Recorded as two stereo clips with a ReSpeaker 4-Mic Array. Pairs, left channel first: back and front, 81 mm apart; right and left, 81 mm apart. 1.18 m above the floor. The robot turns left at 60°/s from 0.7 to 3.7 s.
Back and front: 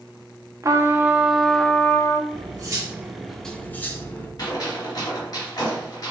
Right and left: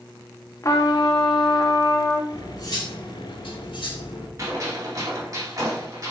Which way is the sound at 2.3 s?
30° right.